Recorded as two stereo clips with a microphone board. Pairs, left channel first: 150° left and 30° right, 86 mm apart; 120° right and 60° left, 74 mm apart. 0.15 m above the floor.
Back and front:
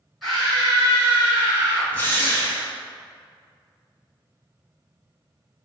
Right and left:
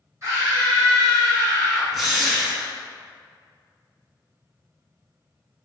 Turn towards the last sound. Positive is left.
turn(degrees=150)